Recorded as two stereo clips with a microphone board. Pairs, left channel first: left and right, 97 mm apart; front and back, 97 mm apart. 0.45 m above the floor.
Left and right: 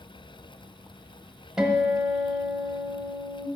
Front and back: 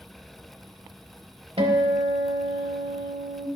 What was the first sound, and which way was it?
A guitar, 175° right.